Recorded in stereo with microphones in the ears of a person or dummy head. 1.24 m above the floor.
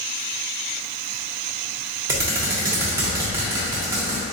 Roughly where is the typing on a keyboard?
Centre.